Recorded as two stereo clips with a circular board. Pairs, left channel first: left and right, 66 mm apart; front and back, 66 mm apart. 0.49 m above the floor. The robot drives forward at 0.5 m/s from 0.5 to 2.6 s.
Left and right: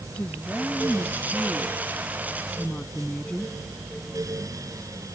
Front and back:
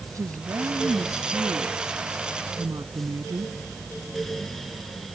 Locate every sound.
0.1 s a woman speaking: 160° left; by 3.5 s 165° left